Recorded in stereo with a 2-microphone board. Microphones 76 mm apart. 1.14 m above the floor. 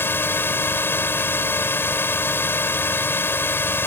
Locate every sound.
0.0 s a drone: 30° left (ahead or behind)